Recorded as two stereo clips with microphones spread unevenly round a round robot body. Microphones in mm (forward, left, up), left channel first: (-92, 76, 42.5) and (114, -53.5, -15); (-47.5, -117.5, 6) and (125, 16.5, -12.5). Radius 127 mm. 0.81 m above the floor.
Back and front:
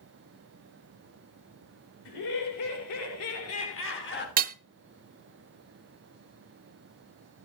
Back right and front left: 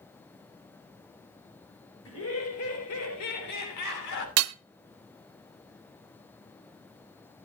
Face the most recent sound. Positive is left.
turn(degrees=30)